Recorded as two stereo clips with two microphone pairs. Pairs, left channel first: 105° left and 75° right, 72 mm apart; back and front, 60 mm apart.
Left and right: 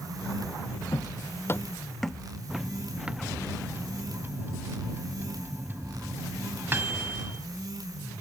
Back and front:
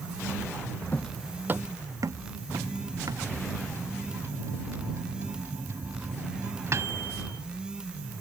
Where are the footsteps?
125° left; by 3.3 s straight ahead.